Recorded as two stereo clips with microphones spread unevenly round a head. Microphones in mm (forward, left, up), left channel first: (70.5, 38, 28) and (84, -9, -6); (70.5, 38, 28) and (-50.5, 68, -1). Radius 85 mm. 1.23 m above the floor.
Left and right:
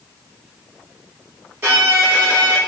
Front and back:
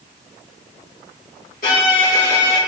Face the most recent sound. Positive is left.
turn(degrees=-60)